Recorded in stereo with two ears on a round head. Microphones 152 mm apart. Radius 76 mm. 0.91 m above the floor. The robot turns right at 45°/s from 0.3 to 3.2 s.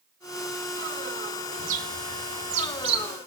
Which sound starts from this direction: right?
A bird, at 1.6 s.